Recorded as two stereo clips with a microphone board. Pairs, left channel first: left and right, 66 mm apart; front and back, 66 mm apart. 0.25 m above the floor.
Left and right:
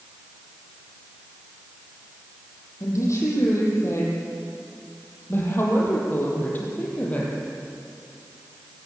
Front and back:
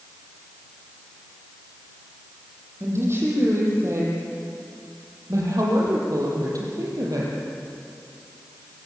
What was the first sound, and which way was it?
A woman speaking, 130° left.